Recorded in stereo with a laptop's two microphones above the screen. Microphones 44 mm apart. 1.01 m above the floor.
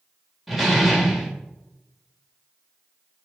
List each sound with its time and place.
0.5 s a door slam: 5° right (ahead or behind), 3 m